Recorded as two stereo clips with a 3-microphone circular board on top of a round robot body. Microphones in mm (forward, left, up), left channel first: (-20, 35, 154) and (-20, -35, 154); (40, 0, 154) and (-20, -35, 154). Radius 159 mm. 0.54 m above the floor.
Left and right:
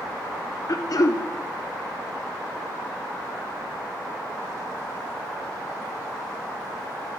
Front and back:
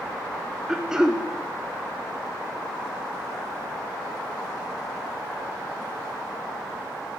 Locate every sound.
0.7 s throat clearing: 130° left, 0.6 m